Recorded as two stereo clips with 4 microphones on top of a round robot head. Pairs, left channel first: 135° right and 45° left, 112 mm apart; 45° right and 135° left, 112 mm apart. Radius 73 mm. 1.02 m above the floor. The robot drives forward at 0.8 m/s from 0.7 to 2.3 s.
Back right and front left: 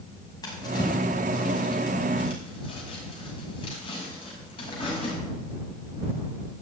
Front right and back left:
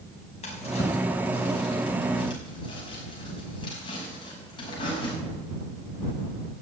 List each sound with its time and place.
0.4 s a drawer: 80° right, 5.5 m; by 5.2 s 90° right, 5.5 m